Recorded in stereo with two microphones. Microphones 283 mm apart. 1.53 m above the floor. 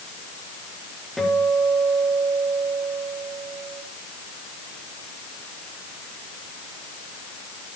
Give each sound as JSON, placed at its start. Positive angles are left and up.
{"t": 1.2, "sound": "a guitar", "side_deg": 0, "distance_m": 6.0}